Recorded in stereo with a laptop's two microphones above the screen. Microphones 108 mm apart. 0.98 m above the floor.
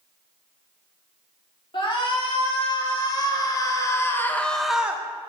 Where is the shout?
50° left (ahead or behind), 2 m; by 5.0 s 20° right (ahead or behind), 0.6 m.